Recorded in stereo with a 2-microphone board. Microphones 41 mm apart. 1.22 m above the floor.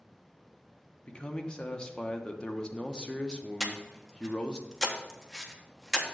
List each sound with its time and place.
1.0 s a man speaking: 20° left (ahead or behind), 0.9 m
3.6 s breathing: 5° left (ahead or behind), 1.0 m